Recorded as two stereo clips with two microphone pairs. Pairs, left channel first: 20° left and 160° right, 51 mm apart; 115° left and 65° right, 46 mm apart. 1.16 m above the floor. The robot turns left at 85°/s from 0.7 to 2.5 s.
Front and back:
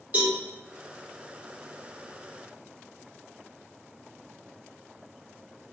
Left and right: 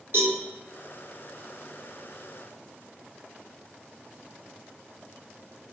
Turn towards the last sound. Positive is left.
turn(degrees=110)